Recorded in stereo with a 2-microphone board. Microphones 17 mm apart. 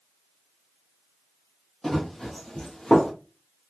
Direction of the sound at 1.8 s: 25° left (ahead or behind).